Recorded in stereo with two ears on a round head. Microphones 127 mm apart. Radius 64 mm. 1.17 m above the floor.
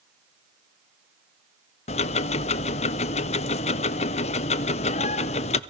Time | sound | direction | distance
1.9 | ticking | 45° left (ahead or behind) | 0.6 m